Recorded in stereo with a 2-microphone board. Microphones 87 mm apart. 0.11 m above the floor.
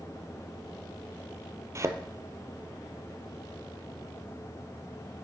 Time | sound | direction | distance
1.8 | a thud | 35° right (ahead or behind) | 0.9 m